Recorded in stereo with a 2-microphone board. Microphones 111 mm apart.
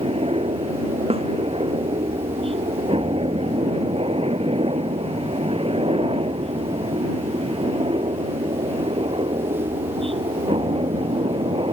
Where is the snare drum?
65° right (ahead or behind).